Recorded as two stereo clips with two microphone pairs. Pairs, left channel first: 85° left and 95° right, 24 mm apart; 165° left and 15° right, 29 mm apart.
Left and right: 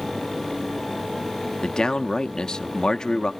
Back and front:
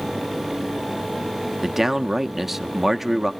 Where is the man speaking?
60° left, 0.6 m.